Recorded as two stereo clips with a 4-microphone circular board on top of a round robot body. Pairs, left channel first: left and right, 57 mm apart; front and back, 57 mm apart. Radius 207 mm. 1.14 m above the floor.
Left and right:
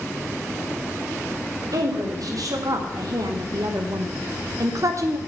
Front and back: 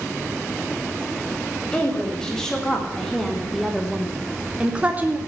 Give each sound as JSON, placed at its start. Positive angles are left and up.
{"t": 1.7, "sound": "a woman speaking", "azimuth_deg": -80, "distance_m": 2.5}